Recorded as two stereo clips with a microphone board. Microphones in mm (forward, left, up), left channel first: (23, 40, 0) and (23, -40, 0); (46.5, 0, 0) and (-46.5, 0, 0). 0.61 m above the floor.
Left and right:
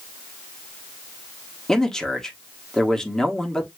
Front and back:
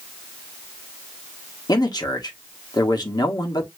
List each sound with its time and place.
1.7 s a man speaking: 10° left, 1.3 m